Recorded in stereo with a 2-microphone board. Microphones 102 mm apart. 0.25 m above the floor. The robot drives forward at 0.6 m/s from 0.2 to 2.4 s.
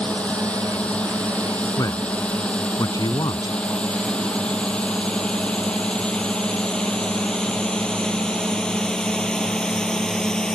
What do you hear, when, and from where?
0.0 s a drone: 10° left (ahead or behind); by 10.6 s 5° left (ahead or behind)
1.8 s a man speaking: 35° left (ahead or behind); by 3.6 s 40° left (ahead or behind)